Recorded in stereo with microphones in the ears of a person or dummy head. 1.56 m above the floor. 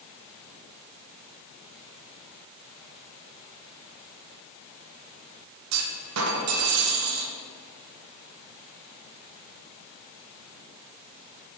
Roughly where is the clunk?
Right.